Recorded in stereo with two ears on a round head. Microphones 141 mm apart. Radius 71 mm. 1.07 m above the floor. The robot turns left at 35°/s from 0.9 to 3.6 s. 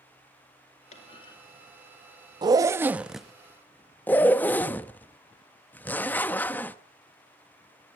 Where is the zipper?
30° right (ahead or behind), 0.6 m; by 6.8 s 10° left (ahead or behind), 0.6 m.